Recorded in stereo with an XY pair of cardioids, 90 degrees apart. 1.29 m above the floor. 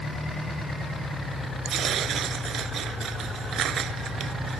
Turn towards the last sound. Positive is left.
turn(degrees=-65)